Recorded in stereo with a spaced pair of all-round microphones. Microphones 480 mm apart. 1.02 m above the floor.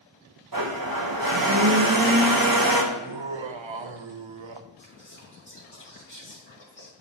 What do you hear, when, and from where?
0.5 s a blender: 45° right (ahead or behind), 0.8 m
2.9 s laughter: 70° right (ahead or behind), 0.6 m
4.8 s whispering: 40° left (ahead or behind), 2 m